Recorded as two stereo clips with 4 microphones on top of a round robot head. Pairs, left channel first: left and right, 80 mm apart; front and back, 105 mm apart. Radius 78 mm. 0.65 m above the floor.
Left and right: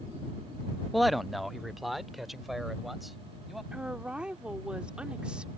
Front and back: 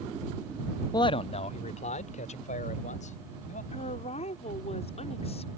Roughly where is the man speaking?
Ahead.